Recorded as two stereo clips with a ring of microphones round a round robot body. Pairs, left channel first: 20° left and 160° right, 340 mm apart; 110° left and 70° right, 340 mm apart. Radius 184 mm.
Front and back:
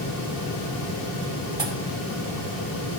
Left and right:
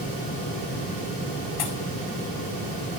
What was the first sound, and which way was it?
A pop, 125° left.